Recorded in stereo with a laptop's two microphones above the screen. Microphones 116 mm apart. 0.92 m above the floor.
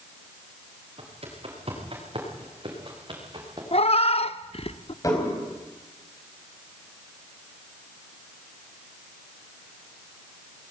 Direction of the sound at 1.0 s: 55° right (ahead or behind).